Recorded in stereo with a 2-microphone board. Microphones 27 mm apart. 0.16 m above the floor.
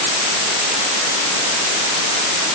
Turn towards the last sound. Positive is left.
No sound to turn to.